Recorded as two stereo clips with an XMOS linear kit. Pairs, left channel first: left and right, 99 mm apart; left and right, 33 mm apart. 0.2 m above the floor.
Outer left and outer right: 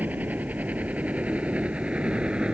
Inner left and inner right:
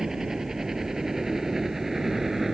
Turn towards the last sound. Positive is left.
turn(degrees=-10)  # may be behind; listen again after turning